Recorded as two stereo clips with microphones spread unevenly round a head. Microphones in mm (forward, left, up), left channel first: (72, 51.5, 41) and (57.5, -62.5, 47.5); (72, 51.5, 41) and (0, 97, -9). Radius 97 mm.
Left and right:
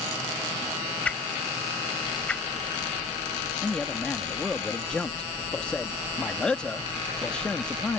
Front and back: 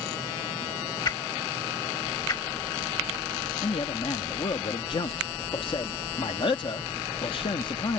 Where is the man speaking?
Straight ahead.